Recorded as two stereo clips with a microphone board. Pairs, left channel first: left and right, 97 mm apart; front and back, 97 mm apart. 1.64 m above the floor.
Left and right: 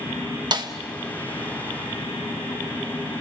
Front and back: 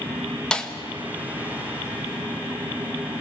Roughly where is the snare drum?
Right.